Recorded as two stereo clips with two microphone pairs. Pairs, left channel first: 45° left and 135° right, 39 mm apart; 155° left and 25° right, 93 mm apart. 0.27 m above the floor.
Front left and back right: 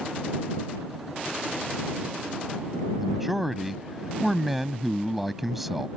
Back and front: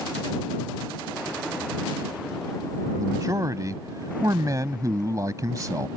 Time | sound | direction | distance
3.0 | a man speaking | 55° right | ?